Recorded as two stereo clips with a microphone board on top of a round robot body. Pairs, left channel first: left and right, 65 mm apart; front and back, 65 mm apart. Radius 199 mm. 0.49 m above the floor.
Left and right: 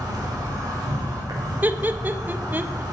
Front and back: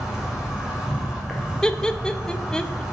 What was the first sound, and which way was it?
An insect, 100° right.